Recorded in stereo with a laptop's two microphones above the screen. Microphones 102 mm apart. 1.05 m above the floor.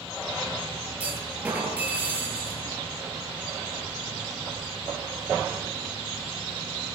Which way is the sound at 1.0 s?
15° right (ahead or behind).